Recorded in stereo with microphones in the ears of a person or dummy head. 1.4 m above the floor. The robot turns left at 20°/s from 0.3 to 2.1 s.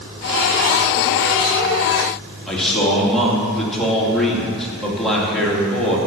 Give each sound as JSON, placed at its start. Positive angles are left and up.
{"t": 2.5, "sound": "a man speaking", "side_deg": 0, "distance_m": 3.0}